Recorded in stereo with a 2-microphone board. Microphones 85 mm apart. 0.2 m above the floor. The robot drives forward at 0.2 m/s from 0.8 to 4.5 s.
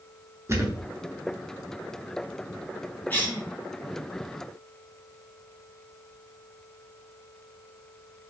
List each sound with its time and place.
0.5 s a thud: 35° right (ahead or behind), 0.8 m
3.1 s a cough: 20° left (ahead or behind), 1.2 m